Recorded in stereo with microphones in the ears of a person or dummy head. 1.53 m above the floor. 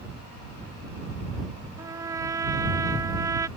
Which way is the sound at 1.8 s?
20° right (ahead or behind).